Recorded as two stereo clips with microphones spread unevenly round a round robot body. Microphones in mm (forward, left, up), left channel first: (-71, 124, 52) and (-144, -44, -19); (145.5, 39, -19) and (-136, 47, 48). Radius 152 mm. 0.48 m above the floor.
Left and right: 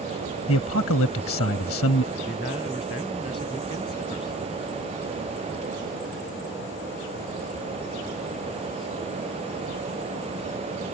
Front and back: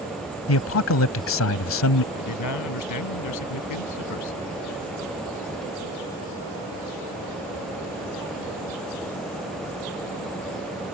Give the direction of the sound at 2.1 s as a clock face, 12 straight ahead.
12 o'clock.